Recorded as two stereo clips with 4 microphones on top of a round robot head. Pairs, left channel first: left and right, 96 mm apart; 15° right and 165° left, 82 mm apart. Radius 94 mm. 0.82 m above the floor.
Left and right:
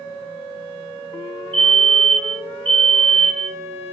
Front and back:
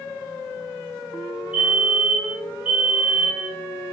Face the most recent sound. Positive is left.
turn(degrees=-115)